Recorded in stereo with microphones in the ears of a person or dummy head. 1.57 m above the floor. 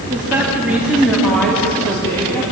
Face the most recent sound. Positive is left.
turn(degrees=15)  # may be behind; listen again after turning